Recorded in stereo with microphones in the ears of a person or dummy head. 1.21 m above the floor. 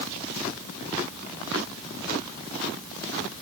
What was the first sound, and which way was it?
Only background noise.